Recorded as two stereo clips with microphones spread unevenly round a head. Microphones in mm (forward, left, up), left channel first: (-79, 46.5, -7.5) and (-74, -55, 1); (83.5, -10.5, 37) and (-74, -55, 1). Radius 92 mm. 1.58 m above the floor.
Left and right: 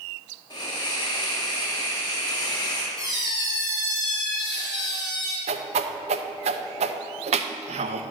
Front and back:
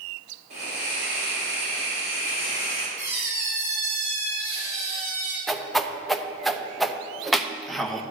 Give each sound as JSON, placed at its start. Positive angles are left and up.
{"t": 0.5, "sound": "a hiss", "azimuth_deg": 140, "distance_m": 3.5}
{"t": 3.0, "sound": "a squeak", "azimuth_deg": 135, "distance_m": 3.0}
{"t": 5.5, "sound": "a whoosh", "azimuth_deg": -70, "distance_m": 0.6}